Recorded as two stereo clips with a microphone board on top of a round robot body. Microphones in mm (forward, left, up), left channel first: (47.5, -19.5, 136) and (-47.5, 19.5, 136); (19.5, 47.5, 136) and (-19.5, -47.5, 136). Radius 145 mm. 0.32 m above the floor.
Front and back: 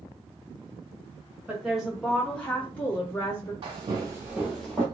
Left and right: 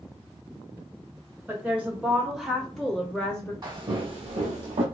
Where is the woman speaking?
145° right, 1.4 m; by 3.5 s 5° left, 1.6 m.